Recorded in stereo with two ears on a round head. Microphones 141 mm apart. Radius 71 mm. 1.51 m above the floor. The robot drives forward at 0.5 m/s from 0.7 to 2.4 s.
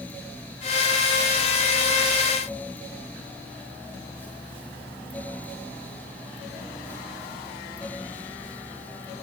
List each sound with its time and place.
Only background noise.